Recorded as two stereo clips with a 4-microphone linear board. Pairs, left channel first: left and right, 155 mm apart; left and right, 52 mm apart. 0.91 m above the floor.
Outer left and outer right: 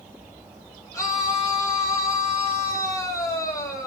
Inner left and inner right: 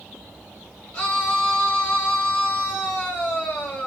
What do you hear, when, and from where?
0.9 s a scream: 20° left (ahead or behind), 6 m